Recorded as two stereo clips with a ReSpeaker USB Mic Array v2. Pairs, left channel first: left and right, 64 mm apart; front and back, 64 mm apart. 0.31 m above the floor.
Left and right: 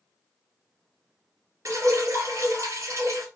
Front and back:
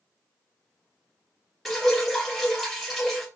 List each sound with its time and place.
1.6 s dripping: 90° right, 2 m